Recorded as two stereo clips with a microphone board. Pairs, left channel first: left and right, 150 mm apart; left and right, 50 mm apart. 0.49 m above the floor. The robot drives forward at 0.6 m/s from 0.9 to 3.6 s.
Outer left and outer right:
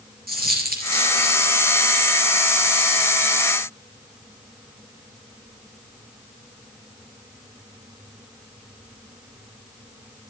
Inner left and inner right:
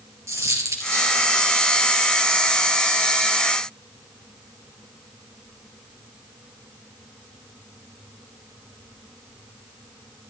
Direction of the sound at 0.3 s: 80° right.